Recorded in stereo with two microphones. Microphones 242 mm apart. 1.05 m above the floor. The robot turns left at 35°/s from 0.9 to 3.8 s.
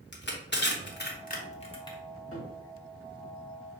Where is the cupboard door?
65° left (ahead or behind), 1.1 m; by 2.6 s 60° left (ahead or behind), 1.1 m.